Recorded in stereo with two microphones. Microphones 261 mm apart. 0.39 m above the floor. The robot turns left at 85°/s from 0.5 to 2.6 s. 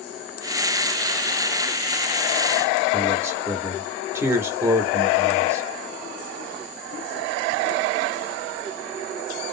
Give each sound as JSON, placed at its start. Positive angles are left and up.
{"t": 2.9, "sound": "a man speaking", "side_deg": -10, "distance_m": 0.8}